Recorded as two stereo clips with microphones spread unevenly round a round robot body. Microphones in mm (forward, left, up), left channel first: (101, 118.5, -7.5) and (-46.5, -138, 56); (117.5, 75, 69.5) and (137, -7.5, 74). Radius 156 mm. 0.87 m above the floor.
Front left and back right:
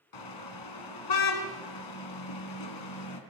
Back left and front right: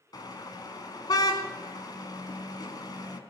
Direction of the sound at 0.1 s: 65° left.